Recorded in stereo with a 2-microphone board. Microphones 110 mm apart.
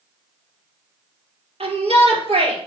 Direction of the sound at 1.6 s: 65° right (ahead or behind).